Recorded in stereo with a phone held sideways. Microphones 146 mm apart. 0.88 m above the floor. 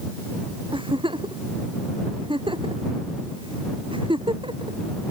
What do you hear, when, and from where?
0.7 s a giggle: 35° right (ahead or behind)